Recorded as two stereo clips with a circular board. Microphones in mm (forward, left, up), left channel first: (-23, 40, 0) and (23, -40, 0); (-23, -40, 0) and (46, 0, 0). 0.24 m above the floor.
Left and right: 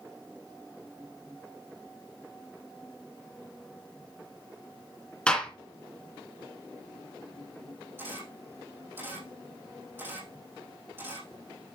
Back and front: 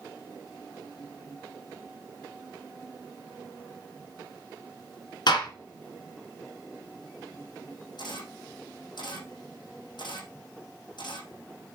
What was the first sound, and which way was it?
A gunshot, 160° right.